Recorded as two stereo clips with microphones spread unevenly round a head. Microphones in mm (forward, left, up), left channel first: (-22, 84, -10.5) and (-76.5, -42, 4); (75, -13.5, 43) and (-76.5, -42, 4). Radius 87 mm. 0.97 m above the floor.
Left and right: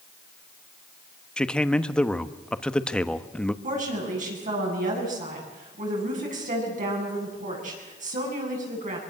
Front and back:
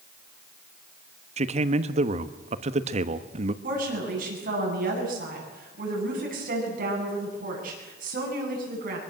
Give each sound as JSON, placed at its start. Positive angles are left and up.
{"t": 1.4, "sound": "a man speaking", "azimuth_deg": 150, "distance_m": 1.2}
{"t": 3.6, "sound": "a woman speaking", "azimuth_deg": -140, "distance_m": 9.0}